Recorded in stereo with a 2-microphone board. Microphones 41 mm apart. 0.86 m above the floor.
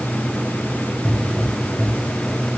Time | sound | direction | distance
1.1 | a pop | 15° left (ahead or behind) | 1.7 m